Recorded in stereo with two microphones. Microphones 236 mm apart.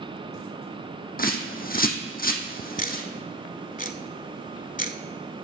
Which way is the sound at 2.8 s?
35° left (ahead or behind).